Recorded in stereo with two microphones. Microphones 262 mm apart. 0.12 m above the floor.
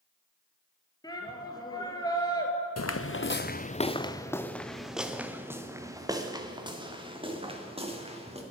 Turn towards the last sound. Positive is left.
turn(degrees=-25)  # may be behind; listen again after turning